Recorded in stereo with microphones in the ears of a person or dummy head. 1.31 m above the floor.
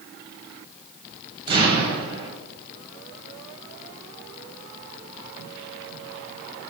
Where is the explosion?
30° right (ahead or behind), 0.7 m.